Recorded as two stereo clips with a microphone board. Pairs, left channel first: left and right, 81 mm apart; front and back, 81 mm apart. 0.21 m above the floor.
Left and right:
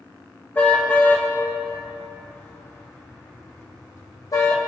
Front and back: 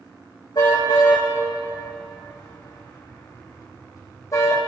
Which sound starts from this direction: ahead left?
A car horn, at 0.6 s.